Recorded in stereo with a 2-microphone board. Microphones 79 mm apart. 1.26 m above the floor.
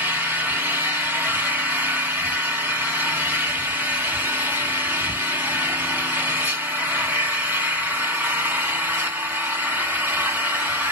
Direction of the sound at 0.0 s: 25° right (ahead or behind).